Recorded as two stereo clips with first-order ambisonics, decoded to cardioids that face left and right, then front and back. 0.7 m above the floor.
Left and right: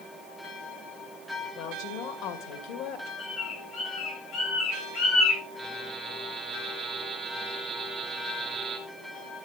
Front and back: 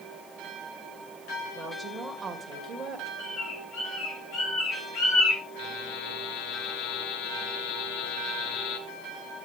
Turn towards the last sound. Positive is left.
turn(degrees=-20)